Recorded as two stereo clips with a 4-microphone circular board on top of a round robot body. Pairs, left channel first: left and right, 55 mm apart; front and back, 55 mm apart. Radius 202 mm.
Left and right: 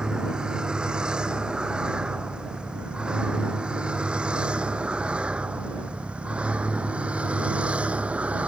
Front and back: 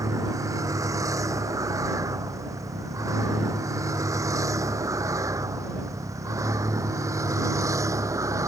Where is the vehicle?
165° right; by 8.5 s 160° right.